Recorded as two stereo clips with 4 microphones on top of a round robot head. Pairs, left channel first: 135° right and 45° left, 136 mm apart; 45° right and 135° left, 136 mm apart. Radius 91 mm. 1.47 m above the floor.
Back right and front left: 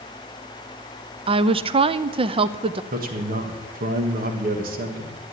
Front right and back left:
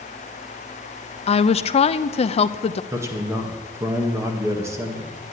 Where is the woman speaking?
5° right, 0.6 m.